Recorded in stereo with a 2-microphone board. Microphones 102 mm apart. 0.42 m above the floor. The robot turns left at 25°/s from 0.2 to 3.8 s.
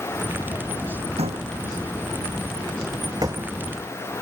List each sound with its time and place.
1.2 s a door slam: 90° right; by 3.6 s 30° right (ahead or behind)